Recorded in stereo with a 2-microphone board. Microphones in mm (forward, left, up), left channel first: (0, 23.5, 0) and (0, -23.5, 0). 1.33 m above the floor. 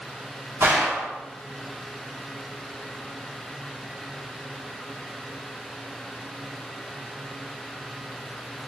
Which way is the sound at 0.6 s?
75° right (ahead or behind).